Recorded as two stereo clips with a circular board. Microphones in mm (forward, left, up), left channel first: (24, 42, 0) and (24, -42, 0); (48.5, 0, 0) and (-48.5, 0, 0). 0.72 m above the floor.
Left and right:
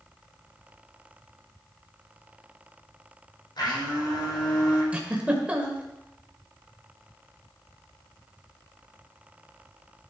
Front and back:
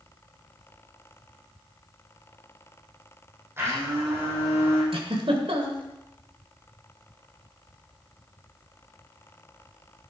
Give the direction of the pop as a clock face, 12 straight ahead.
I don't hear a pop.